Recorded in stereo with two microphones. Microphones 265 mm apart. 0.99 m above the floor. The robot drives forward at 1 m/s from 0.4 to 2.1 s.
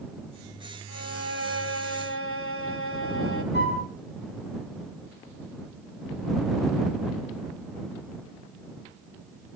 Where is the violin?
75° left (ahead or behind), 2.5 m; by 3.4 s 55° left (ahead or behind), 3 m.